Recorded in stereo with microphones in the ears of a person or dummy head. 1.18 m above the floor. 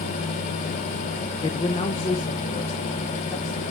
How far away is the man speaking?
About 0.5 m.